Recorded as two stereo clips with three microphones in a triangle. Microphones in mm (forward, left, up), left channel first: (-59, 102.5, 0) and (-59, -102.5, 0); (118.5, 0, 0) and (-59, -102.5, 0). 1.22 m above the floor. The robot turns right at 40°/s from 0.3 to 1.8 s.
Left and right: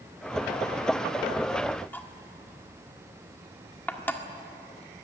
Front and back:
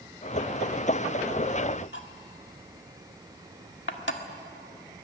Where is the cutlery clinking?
10° left, 1.6 m.